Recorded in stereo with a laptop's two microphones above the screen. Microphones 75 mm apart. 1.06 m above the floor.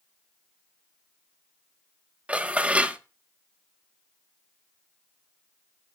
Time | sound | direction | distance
2.3 | dishes clattering | 15° right (ahead or behind) | 0.5 m